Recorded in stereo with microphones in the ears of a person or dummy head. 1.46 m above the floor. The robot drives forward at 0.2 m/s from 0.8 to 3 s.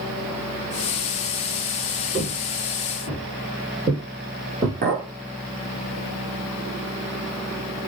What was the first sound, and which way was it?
Footsteps, 15° right (ahead or behind).